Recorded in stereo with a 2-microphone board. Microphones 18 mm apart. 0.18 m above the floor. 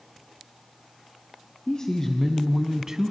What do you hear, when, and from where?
1.7 s a man speaking: 40° left (ahead or behind), 1.6 m; by 3.1 s 35° right (ahead or behind), 1.4 m